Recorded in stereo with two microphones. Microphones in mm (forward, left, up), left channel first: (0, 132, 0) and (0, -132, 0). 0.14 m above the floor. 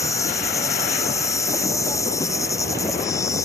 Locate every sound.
0.0 s an insect: 10° left (ahead or behind)